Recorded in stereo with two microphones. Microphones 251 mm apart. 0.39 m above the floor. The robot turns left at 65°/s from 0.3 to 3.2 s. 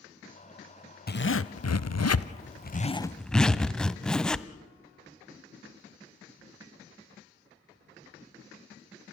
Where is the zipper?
140° left, 0.6 m; by 4.5 s 5° left, 0.6 m.